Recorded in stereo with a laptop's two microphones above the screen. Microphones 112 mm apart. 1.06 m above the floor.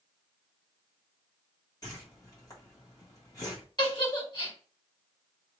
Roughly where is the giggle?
Left.